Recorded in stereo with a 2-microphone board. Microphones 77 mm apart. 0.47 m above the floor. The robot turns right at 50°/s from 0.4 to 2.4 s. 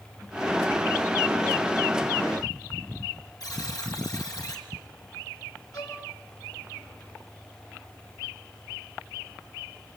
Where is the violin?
55° left (ahead or behind), 6.5 m.